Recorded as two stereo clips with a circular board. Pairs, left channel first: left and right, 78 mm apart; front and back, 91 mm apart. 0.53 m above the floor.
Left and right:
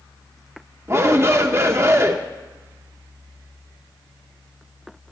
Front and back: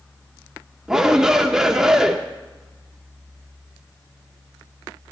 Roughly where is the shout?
Right.